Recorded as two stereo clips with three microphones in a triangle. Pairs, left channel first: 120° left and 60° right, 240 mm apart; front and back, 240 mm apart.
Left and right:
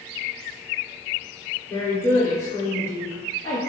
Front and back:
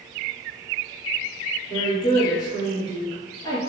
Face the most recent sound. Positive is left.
turn(degrees=55)